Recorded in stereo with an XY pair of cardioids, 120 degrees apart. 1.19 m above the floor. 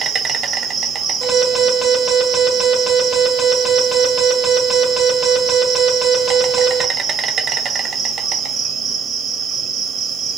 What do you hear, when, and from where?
0.0 s an insect: 50° right, 0.9 m
1.2 s an alarm: 5° left, 2.5 m